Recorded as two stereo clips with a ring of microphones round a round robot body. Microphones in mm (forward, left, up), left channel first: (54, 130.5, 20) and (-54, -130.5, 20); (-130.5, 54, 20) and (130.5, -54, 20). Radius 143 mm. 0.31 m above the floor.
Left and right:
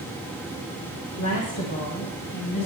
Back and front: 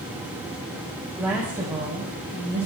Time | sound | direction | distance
1.2 | a woman speaking | 65° left | 1.9 m